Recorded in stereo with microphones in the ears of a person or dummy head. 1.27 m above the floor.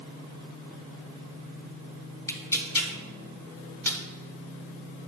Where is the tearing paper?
15° left (ahead or behind), 0.9 m.